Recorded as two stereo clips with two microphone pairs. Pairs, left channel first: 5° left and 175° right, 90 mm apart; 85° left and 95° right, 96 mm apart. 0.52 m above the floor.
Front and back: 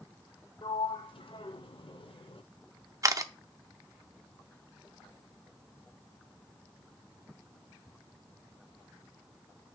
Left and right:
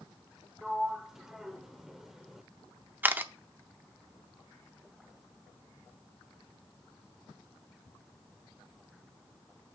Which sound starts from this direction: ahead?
A sliding door, at 0.6 s.